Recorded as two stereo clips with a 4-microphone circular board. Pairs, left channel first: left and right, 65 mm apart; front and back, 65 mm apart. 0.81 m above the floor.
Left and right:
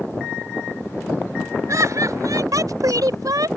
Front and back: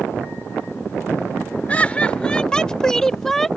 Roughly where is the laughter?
Ahead right.